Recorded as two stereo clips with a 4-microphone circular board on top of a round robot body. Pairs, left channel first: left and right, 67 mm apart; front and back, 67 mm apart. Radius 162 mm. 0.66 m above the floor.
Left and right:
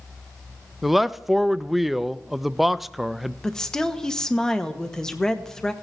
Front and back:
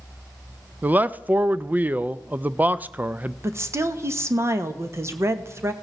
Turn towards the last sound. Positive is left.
turn(degrees=165)